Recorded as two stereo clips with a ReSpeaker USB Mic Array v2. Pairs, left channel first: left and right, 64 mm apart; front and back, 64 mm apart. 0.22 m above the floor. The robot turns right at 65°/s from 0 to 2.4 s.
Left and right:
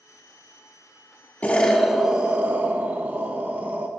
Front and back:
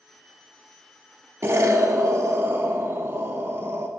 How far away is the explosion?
About 0.6 m.